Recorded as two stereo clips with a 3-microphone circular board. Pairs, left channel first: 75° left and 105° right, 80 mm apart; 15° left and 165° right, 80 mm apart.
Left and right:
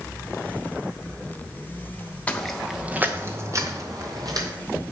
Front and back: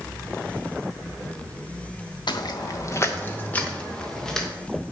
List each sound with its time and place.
2.3 s footsteps: straight ahead, 1.3 m; by 4.5 s 70° right, 3 m